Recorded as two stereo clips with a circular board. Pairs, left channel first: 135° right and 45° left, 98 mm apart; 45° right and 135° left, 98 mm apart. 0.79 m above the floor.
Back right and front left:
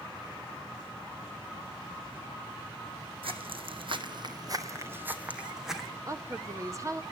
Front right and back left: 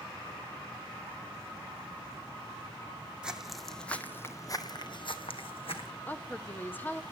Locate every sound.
3.2 s footsteps: 55° left, 2.0 m; by 5.9 s 45° right, 2.5 m
6.1 s a woman speaking: 15° left, 0.9 m